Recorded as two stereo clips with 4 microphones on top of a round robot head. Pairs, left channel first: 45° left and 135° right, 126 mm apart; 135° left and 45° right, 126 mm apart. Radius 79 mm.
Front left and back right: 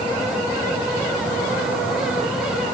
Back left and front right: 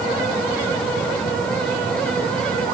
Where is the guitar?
No guitar in this recording.